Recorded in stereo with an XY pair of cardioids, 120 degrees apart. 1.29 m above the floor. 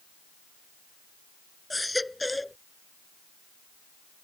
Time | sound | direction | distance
1.7 | a baby crying | 5° left | ?